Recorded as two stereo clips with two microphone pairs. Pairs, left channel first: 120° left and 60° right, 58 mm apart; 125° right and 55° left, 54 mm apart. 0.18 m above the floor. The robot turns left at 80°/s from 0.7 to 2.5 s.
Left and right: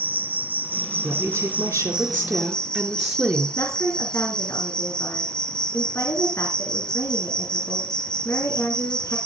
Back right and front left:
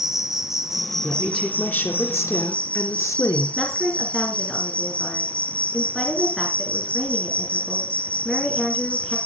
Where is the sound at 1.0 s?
25° right, 3.5 m; by 3.5 s 140° right, 3.5 m.